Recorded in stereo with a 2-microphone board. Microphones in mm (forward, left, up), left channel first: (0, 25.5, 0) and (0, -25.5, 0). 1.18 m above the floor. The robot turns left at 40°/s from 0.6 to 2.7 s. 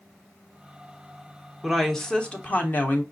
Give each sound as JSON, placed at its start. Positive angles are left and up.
{"t": 1.6, "sound": "a woman speaking", "azimuth_deg": -175, "distance_m": 0.9}